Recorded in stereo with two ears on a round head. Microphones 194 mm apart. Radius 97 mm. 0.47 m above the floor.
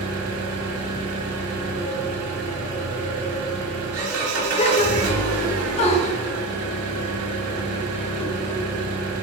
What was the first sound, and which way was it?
An engine running, 75° right (ahead or behind).